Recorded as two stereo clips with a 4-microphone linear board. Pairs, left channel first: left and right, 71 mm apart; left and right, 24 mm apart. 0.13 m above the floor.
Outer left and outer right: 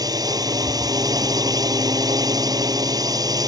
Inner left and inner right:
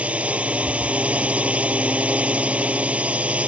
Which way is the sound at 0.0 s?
65° right (ahead or behind).